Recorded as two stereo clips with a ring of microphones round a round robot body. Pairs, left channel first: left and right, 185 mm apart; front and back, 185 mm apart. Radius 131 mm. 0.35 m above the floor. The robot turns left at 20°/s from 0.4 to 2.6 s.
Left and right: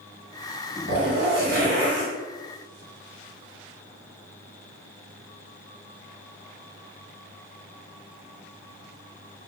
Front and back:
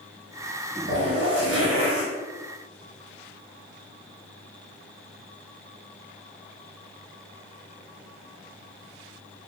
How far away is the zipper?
About 0.6 m.